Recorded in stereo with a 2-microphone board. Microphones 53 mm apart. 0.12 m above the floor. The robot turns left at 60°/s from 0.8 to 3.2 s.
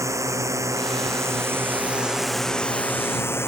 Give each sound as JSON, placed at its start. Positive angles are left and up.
{"t": 0.0, "sound": "a drone", "azimuth_deg": -90}